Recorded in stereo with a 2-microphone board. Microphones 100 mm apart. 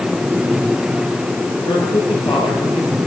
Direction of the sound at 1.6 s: 55° left (ahead or behind).